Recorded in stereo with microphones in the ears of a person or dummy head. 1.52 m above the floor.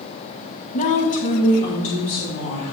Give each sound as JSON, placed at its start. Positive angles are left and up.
{"t": 0.7, "sound": "a woman speaking", "side_deg": 35, "distance_m": 1.2}